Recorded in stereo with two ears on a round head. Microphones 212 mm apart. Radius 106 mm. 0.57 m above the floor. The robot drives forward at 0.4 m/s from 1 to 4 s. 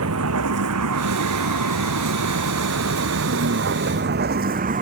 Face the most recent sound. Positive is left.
turn(degrees=-35)  # may be behind; listen again after turning